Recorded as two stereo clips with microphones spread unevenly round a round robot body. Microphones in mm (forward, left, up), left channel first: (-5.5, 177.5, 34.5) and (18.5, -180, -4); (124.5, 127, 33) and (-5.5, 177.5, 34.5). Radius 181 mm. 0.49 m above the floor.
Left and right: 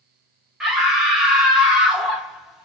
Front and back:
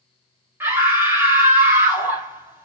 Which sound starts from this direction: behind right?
A scream, at 0.6 s.